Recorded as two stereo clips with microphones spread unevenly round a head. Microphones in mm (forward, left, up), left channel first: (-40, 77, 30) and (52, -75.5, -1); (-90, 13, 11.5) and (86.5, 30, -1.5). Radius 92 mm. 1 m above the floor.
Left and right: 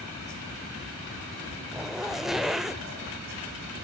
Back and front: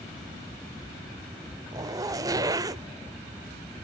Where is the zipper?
55° left, 0.7 m.